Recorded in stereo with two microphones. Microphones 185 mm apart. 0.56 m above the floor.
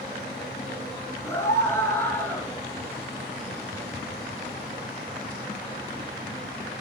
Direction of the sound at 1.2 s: 15° left (ahead or behind).